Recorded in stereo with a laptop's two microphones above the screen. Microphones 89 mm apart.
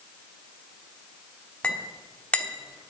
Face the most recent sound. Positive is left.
turn(degrees=15)  # may be behind; listen again after turning